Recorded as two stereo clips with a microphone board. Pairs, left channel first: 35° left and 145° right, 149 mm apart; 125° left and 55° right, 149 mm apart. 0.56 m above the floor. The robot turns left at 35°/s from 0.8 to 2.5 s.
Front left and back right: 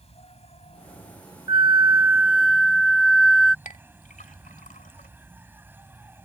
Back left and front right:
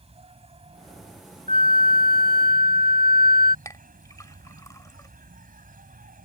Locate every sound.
0.0 s an insect: 10° right; by 6.3 s 70° right
1.5 s a flute: 160° left; by 3.5 s 125° left
3.6 s a clink: 55° left